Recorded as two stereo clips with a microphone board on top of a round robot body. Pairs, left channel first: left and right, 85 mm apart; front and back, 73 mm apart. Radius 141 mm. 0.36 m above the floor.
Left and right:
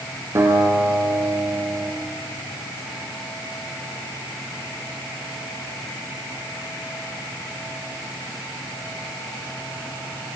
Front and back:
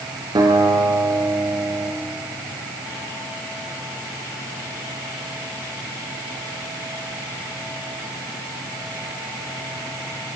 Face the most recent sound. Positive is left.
turn(degrees=-150)